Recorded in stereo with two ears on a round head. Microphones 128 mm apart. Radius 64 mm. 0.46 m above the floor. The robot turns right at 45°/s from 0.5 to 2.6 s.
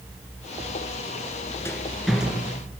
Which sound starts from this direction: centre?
A rattle, at 1.6 s.